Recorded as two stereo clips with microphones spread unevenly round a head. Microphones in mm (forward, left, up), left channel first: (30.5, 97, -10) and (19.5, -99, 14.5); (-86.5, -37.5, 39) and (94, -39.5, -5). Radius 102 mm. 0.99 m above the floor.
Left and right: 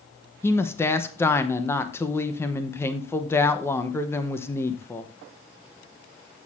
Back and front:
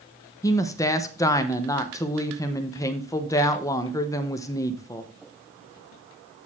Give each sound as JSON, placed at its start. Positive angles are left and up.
{"t": 0.4, "sound": "a woman speaking", "azimuth_deg": 100, "distance_m": 0.8}